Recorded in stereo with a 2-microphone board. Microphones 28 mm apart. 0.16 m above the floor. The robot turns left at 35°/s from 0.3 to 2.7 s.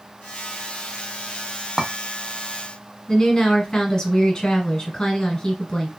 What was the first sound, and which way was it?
A clink, 20° right (ahead or behind).